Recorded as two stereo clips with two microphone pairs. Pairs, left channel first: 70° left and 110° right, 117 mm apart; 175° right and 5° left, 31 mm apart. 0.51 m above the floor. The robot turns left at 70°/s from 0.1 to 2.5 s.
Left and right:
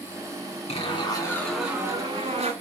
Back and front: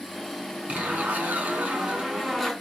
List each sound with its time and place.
0.7 s a zipper: 45° left, 2.5 m; by 2.5 s 85° right, 2.5 m